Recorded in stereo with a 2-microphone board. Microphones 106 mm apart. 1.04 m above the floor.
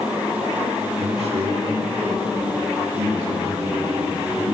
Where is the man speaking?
70° right (ahead or behind), 1.9 m; by 4.4 s 80° right, 7 m.